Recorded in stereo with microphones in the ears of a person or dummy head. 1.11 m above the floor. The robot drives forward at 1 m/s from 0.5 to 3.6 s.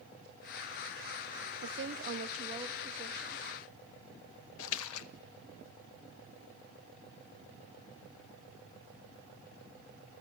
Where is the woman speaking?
60° right (ahead or behind), 0.7 m; by 3.5 s 20° right (ahead or behind), 2 m.